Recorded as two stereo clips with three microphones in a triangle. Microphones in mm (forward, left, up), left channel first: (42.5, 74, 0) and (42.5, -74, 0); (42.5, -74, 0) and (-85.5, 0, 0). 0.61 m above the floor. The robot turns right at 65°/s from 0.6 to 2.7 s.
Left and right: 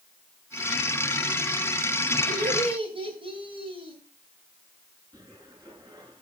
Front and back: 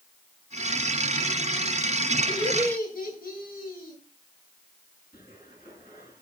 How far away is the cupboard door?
About 8.5 m.